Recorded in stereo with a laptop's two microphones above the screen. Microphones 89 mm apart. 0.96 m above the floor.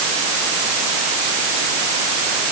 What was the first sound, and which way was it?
Only background noise.